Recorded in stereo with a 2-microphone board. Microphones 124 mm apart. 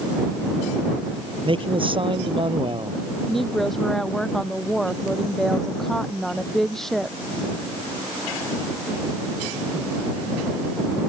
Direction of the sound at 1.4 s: 45° right (ahead or behind).